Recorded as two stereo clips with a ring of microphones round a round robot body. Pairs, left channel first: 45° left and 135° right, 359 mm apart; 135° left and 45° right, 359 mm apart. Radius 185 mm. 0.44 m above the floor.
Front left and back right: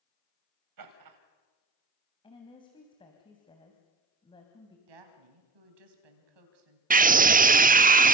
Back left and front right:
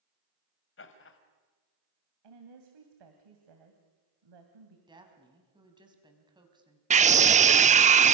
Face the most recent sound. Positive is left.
turn(degrees=-95)